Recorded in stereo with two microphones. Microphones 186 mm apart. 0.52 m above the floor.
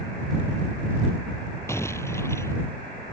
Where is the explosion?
15° left (ahead or behind).